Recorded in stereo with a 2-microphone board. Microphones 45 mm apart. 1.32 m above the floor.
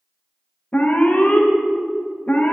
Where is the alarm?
35° left (ahead or behind), 1.2 m.